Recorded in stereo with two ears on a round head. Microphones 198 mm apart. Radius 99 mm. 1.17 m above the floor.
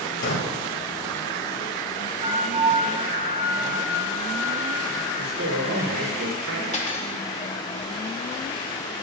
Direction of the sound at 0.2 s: 65° left (ahead or behind).